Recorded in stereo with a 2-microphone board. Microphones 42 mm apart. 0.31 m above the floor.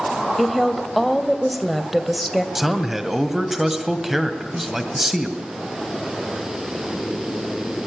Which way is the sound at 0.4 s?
Centre (ahead or behind).